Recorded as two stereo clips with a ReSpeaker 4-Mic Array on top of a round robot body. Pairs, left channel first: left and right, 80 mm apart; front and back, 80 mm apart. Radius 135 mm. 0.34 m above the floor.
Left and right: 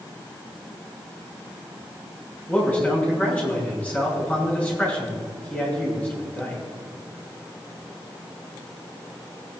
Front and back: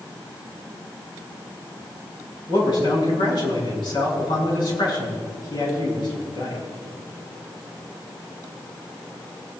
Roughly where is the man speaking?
Ahead.